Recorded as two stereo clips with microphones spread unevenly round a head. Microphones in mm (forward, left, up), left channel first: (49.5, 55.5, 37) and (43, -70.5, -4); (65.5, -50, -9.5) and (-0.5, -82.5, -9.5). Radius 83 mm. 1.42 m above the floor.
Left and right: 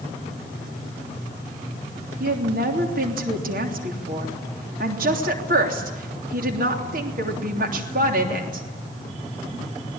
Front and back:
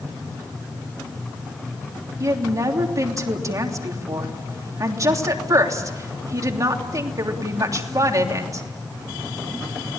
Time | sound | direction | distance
2.2 | a woman speaking | 110° right | 3 m